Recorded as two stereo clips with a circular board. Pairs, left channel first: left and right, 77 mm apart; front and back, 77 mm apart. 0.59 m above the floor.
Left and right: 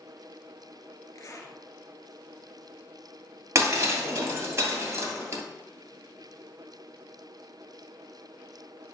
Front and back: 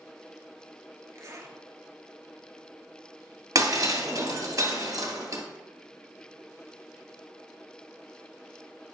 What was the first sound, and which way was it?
A zipper, 135° left.